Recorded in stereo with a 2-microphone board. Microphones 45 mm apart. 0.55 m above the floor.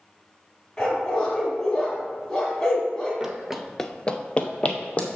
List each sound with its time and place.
0.8 s a dog barking: 15° left (ahead or behind), 2 m
3.2 s running footsteps: 15° right (ahead or behind), 0.9 m; by 5.1 s 30° left (ahead or behind), 1.5 m